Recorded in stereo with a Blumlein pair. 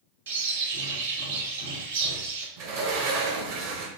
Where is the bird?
65° right, 1.4 m.